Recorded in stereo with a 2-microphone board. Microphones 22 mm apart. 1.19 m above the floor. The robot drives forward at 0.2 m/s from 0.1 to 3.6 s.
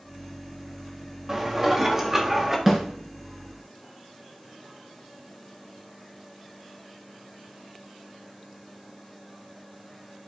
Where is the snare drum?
15° right (ahead or behind), 3 m.